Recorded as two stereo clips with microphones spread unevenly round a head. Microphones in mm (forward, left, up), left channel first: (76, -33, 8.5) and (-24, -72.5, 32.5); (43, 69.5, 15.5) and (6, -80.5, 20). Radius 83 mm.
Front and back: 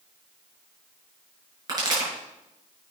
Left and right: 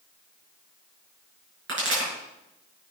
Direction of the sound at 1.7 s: 105° right.